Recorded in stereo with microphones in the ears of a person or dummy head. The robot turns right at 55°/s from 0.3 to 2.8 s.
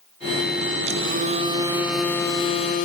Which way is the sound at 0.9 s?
65° right.